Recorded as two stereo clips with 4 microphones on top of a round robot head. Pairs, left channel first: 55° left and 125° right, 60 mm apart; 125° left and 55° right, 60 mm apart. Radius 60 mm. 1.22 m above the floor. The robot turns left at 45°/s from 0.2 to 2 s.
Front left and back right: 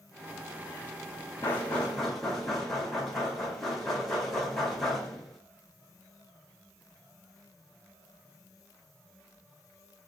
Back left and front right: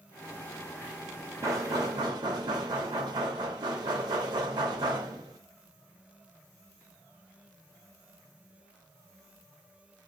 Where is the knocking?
5° right, 1.3 m; by 5.4 s 35° right, 1.3 m.